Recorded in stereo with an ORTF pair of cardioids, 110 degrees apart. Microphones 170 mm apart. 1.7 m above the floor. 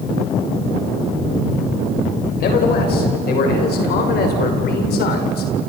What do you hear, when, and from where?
2.4 s a man speaking: 65° left, 7 m; by 5.5 s 70° left, 5.5 m